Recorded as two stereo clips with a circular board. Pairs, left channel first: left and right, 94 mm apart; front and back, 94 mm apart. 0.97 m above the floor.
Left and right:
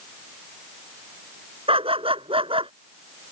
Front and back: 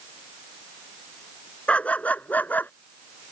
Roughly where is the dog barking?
Right.